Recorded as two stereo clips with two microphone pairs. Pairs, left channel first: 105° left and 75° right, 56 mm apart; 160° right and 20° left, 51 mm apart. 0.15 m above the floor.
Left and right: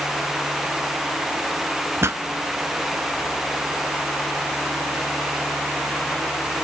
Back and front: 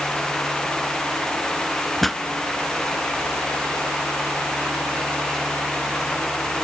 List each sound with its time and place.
2.0 s a pop: 80° right, 0.6 m